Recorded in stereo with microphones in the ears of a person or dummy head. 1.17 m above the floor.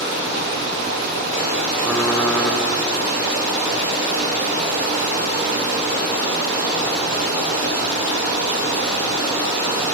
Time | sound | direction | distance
0.0 | running water | 60° right (ahead or behind) | 2.5 m
1.8 | typing on a keyboard | 10° left (ahead or behind) | 0.9 m